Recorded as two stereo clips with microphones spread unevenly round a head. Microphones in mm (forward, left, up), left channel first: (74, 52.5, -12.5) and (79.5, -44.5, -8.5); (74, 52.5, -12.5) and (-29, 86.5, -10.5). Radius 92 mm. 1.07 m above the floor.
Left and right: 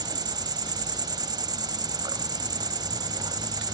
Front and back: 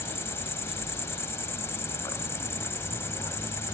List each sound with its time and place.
0.0 s an insect: 80° right, 1.1 m